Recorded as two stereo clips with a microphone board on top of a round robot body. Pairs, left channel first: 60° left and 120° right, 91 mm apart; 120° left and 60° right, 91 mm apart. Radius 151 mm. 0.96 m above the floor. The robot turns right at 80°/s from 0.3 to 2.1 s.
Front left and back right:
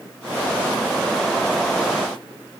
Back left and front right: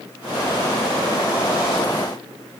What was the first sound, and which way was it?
Only background noise.